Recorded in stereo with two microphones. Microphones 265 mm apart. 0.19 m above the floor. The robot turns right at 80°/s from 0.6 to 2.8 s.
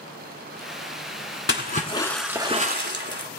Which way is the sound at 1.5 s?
125° left.